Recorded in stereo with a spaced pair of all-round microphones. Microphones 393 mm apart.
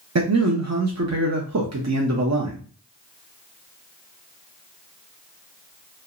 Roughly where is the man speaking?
Right.